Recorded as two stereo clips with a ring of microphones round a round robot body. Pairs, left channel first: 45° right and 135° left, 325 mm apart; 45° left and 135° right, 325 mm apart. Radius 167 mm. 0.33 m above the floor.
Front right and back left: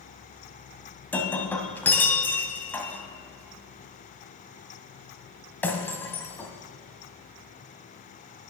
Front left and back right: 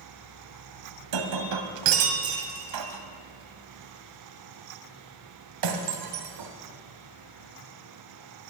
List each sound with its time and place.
1.1 s breaking glass: 130° right, 1.5 m